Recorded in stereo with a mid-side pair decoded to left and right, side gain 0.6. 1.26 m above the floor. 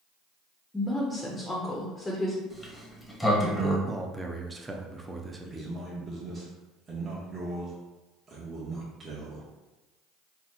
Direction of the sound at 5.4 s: 30° right.